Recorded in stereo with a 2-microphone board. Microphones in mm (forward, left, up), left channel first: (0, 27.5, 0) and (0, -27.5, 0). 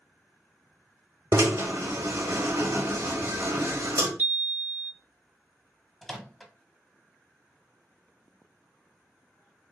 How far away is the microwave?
About 0.6 m.